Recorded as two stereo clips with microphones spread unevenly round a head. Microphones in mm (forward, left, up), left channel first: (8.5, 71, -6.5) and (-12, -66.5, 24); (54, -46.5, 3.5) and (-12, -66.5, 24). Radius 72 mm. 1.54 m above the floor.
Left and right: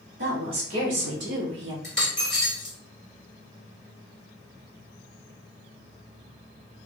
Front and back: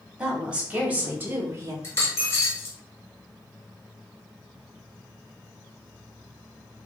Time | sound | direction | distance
0.2 | a woman speaking | 85° right | 1.8 m
1.8 | a dropped coin | 30° right | 1.3 m